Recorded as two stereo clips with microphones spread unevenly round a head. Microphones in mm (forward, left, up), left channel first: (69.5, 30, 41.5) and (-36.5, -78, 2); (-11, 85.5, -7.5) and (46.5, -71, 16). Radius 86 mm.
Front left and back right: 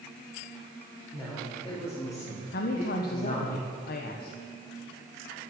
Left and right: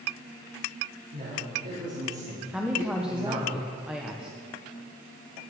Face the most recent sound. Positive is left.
turn(degrees=15)